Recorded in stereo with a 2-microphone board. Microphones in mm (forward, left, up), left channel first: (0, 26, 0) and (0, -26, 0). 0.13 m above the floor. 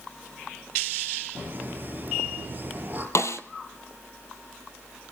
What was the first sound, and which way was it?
Laughter, 40° right (ahead or behind).